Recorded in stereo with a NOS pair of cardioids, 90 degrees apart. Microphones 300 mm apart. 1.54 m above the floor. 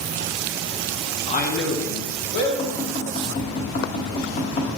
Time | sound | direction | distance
1.3 | a man speaking | 15° left | 0.5 m
2.6 | tapping | 40° left | 1.4 m